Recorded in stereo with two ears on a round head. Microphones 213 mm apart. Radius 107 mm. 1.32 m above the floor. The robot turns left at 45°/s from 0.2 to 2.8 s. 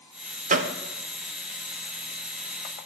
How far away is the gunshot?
About 0.7 m.